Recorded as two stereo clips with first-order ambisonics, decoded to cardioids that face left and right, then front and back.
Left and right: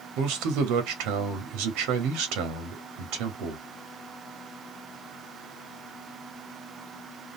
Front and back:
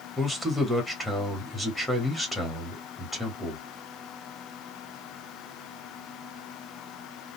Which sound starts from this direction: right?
A man speaking, at 0.2 s.